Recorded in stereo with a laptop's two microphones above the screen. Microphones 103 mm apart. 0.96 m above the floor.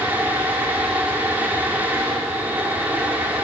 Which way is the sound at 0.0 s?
15° right (ahead or behind).